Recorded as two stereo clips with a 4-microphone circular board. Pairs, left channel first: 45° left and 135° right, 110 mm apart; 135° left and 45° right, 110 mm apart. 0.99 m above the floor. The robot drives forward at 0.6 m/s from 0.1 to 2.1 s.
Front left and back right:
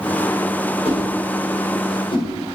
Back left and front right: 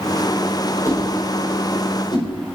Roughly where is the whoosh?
Left.